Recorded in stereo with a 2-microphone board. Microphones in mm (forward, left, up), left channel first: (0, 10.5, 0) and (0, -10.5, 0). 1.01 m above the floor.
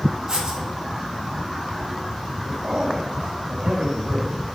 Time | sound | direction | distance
0.3 | writing | 40° right (ahead or behind) | 2.5 m
2.4 | a man speaking | 80° right | 5 m